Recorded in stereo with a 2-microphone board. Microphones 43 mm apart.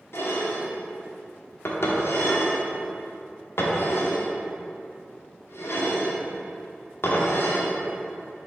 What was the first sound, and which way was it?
Dishes clattering, 75° left (ahead or behind).